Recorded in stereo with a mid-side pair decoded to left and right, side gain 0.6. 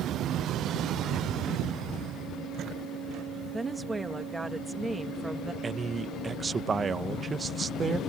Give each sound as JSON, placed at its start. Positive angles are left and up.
{"t": 3.5, "sound": "a woman speaking", "azimuth_deg": -10}
{"t": 5.6, "sound": "a man speaking", "azimuth_deg": -25}